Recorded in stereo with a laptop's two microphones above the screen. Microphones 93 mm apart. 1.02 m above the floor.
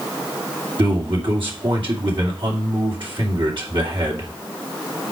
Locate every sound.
0.8 s a man speaking: 60° right (ahead or behind), 2.5 m